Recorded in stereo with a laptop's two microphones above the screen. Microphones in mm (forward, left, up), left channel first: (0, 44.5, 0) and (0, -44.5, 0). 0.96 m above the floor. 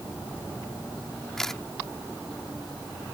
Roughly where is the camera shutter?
Centre.